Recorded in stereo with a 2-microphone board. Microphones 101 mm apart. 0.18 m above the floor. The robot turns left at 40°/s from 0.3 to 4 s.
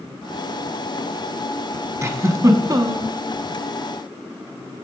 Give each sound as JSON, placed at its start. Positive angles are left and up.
{"t": 2.0, "sound": "a giggle", "azimuth_deg": -55, "distance_m": 0.8}